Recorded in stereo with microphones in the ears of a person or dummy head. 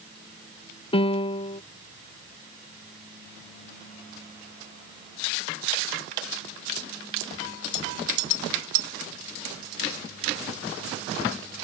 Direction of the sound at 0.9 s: 30° left (ahead or behind).